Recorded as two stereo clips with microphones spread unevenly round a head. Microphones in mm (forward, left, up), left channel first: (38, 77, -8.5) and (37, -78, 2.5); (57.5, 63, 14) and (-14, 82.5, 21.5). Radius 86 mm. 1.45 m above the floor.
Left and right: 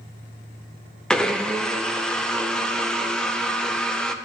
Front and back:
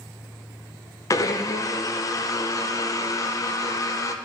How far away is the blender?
About 0.5 m.